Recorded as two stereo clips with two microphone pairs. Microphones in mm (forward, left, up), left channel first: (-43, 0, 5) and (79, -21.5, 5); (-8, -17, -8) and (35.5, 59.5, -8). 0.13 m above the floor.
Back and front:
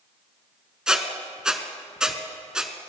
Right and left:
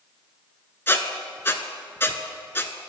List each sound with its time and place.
0.9 s a squeak: 85° right, 0.7 m